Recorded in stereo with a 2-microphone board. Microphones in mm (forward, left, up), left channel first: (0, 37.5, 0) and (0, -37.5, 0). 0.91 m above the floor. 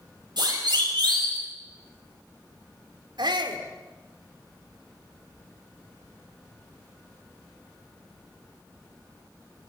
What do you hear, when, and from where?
0.4 s a siren: 70° right (ahead or behind), 8 m; by 1.4 s 80° right, 8.5 m
3.2 s a shout: 75° right (ahead or behind), 3 m